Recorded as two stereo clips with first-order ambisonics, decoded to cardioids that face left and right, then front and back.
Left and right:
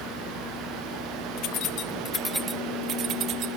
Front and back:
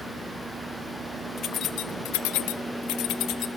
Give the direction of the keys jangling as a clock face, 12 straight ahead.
10 o'clock.